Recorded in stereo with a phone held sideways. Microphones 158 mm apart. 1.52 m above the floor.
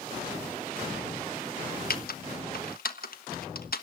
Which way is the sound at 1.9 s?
70° left (ahead or behind).